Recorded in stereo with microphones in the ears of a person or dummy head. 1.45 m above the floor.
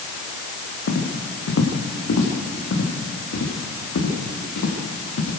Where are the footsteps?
60° left (ahead or behind), 4.5 m; by 5.3 s 75° left (ahead or behind), 6.5 m.